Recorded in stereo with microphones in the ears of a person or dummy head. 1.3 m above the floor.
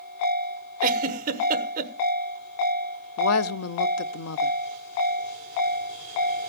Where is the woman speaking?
70° left (ahead or behind), 0.7 m.